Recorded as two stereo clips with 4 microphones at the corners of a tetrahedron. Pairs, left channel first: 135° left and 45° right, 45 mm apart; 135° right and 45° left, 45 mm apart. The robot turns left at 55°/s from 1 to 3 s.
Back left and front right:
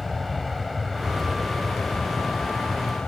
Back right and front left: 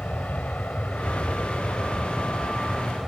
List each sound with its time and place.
0.0 s an aircraft: 135° right; by 3.1 s 115° left